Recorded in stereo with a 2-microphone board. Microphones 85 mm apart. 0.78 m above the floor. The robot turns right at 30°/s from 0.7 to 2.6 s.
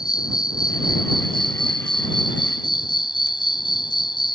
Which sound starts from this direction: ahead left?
An insect, at 0.0 s.